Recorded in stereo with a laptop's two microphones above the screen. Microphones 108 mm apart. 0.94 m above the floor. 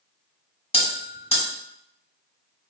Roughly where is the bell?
Left.